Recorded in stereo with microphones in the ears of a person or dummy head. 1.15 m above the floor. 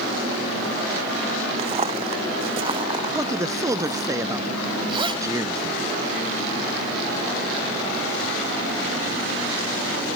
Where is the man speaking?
20° right (ahead or behind).